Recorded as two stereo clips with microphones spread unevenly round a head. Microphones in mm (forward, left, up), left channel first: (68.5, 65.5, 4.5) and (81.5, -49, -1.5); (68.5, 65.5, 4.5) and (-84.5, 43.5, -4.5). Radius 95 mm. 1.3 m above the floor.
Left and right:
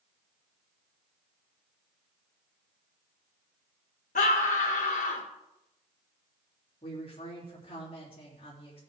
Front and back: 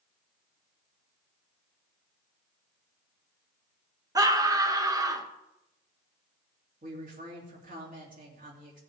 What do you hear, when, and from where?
4.2 s a scream: 120° left, 1.4 m
6.8 s a woman speaking: 160° left, 3 m